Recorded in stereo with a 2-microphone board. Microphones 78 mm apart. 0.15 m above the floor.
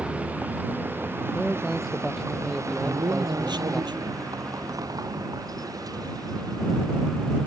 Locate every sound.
0.0 s a vehicle: 15° right (ahead or behind); by 7.5 s 55° right (ahead or behind)
1.3 s a man speaking: 5° right (ahead or behind)
2.8 s a man speaking: 70° right (ahead or behind)